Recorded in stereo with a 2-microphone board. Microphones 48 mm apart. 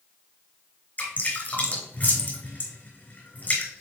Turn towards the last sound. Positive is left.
turn(degrees=40)  # may be behind; listen again after turning